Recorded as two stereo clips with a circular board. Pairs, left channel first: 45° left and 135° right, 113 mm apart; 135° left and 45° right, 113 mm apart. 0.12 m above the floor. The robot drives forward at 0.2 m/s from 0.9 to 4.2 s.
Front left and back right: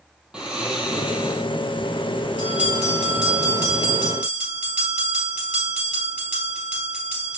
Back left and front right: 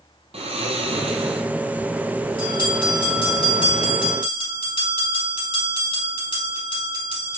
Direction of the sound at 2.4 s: 150° left.